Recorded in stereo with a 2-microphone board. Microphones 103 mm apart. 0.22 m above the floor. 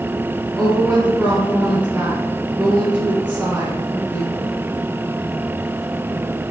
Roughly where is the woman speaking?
Centre.